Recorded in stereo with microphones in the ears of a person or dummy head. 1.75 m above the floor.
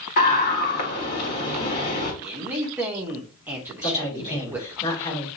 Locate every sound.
0.2 s a scream: 45° left (ahead or behind), 1.8 m
2.2 s a man speaking: 10° right (ahead or behind), 0.7 m
3.8 s a man speaking: 25° left (ahead or behind), 3 m